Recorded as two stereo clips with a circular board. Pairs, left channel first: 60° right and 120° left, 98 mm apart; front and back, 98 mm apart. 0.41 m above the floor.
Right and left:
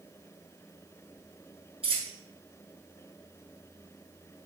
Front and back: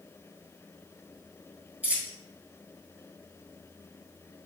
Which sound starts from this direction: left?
A dropped coin, at 1.8 s.